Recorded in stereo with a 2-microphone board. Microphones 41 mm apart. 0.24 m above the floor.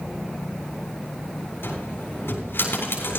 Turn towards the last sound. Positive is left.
turn(degrees=75)  # may be behind; listen again after turning